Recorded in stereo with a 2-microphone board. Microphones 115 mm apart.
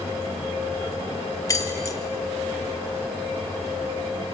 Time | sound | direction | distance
1.5 | keys jangling | 25° left (ahead or behind) | 1.1 m